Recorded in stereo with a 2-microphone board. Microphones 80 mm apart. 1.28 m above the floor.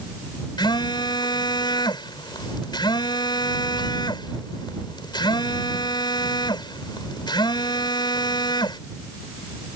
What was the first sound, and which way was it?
A phone buzzing, 65° left (ahead or behind).